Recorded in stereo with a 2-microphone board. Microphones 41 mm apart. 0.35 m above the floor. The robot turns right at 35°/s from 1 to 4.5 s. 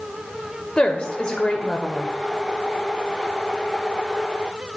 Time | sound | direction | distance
0.8 | a woman speaking | 25° left (ahead or behind) | 0.9 m